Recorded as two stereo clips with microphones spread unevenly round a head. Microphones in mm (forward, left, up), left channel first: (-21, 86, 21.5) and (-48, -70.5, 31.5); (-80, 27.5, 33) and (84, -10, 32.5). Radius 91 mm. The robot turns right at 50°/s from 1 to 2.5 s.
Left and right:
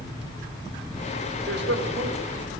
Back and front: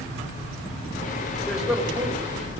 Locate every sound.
1.5 s a man speaking: 110° right, 4.5 m; by 2.5 s 60° right, 4.5 m